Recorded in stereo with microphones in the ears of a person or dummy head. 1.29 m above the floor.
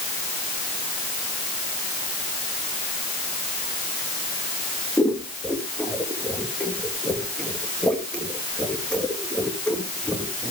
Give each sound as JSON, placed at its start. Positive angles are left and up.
{"t": 5.0, "sound": "scissors", "side_deg": 10, "distance_m": 1.6}